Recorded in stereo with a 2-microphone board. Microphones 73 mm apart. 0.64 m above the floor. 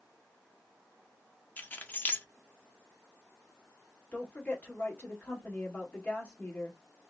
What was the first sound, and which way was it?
Keys jangling, 25° left (ahead or behind).